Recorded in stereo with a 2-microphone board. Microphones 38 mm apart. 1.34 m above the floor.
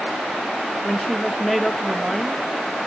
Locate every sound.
0.8 s a woman speaking: centre (ahead or behind), 1.7 m